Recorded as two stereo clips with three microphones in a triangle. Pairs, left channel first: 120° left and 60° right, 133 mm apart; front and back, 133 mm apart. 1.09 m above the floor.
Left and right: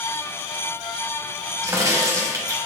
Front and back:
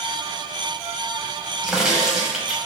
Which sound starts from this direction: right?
A crack, at 1.6 s.